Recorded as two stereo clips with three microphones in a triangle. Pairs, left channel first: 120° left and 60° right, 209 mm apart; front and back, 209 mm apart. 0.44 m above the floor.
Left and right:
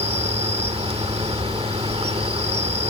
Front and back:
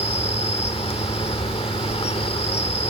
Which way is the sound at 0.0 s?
30° right.